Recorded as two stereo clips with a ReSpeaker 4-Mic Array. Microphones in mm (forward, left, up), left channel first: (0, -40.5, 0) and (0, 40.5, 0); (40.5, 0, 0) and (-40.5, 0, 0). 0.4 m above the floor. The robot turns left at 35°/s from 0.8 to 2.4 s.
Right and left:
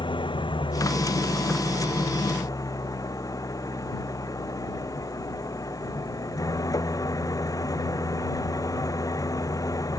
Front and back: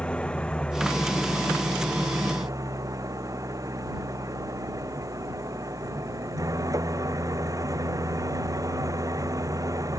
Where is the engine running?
75° right; by 10.0 s 135° right.